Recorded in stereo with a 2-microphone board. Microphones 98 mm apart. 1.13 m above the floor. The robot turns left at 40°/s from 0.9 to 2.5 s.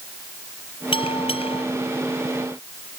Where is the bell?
70° left (ahead or behind); by 1.6 s 80° left.